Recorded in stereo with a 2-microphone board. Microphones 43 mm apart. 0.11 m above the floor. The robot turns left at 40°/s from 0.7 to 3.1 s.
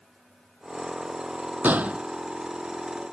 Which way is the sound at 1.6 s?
45° right (ahead or behind).